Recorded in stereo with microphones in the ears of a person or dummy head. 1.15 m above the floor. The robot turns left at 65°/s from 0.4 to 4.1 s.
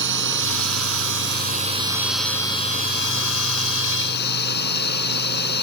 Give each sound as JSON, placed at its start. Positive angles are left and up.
{"t": 0.0, "sound": "a drone", "azimuth_deg": -65}